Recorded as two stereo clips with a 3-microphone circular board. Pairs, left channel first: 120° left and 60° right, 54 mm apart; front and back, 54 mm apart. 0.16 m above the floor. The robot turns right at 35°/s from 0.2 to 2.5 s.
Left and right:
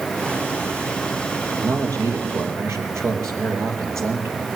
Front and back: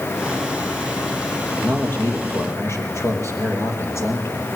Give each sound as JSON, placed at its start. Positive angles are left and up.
{"t": 1.5, "sound": "a man speaking", "azimuth_deg": -60, "distance_m": 4.0}